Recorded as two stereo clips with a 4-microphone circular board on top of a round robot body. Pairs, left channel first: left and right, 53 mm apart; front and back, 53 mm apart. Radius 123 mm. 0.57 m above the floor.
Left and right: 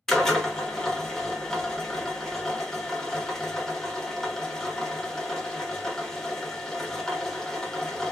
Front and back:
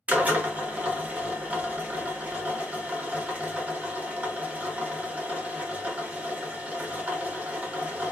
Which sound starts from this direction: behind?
A drill, at 0.1 s.